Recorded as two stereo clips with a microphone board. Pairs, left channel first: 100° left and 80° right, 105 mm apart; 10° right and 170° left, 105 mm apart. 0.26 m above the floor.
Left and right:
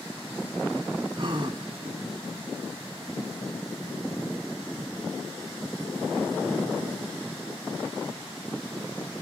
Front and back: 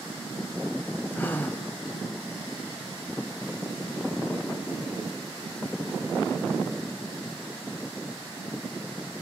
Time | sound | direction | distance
1.1 | a gasp | 75° right | 0.9 m